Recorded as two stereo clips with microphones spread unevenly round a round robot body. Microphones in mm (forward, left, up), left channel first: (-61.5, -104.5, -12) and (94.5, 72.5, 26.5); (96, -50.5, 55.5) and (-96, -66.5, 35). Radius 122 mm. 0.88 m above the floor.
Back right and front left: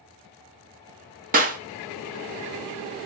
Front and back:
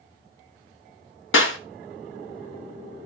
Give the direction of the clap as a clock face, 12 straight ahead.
12 o'clock.